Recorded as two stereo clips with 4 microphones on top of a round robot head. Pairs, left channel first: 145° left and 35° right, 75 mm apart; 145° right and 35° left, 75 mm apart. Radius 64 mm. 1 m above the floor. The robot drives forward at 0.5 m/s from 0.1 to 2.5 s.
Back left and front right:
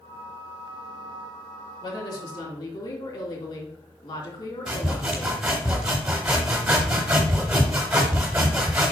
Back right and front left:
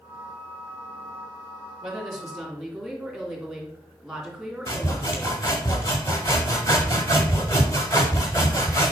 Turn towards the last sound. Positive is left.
turn(degrees=-110)